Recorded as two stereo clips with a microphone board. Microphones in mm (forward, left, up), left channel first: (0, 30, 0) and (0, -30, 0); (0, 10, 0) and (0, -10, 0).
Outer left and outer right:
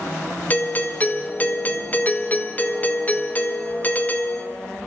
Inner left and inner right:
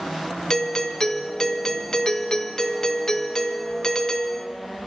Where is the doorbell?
30° left (ahead or behind), 1.5 m.